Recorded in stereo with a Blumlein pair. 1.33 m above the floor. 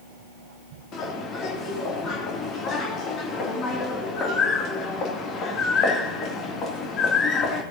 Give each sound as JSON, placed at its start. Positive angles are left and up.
{"t": 0.9, "sound": "a bird", "azimuth_deg": 30, "distance_m": 2.5}